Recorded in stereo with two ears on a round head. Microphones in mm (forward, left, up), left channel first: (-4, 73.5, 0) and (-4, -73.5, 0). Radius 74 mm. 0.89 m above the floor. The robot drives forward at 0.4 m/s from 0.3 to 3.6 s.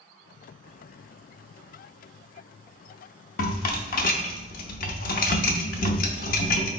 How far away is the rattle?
About 0.6 m.